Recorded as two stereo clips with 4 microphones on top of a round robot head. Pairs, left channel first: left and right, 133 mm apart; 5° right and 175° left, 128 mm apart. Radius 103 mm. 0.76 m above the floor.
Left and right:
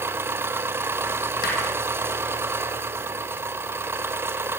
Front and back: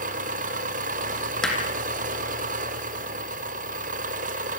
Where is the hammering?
80° left, 6.5 m.